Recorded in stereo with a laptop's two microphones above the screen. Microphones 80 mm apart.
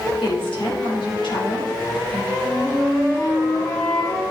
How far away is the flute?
About 3.5 m.